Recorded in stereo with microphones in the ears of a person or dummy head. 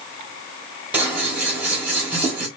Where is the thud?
I don't hear a thud.